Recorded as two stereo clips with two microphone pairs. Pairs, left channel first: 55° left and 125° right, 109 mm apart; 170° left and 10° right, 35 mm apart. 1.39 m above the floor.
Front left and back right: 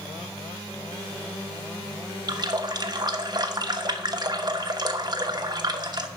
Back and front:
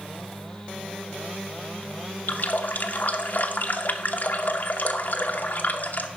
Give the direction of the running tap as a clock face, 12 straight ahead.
6 o'clock.